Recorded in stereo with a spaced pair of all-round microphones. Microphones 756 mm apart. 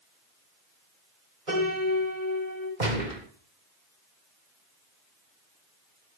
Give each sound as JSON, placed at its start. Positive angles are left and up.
{"t": 1.5, "sound": "a piano", "side_deg": -80, "distance_m": 8.5}
{"t": 2.8, "sound": "a gunshot", "side_deg": -70, "distance_m": 2.5}